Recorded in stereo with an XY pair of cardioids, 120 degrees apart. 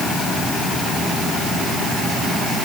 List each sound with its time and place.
Only background noise.